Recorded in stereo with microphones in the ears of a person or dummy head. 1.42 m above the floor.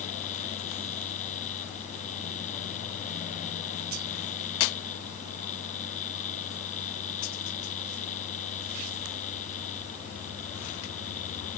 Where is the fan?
40° left (ahead or behind).